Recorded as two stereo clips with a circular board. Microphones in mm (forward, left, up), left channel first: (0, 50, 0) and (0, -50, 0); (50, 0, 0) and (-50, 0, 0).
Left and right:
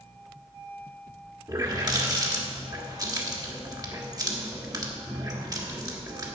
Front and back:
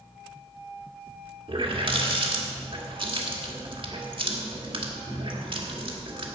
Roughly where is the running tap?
Behind right.